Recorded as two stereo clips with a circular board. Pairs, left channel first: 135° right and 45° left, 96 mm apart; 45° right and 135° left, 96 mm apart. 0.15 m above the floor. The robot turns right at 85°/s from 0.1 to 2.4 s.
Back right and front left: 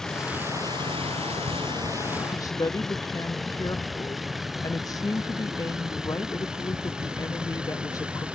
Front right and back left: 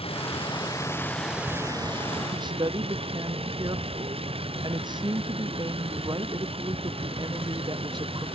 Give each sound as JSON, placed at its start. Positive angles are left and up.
{"t": 0.0, "sound": "a vehicle", "azimuth_deg": -50}
{"t": 2.3, "sound": "a woman speaking", "azimuth_deg": 165}